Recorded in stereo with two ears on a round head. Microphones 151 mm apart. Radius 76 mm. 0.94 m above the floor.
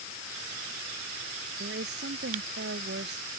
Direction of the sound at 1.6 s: 70° right (ahead or behind).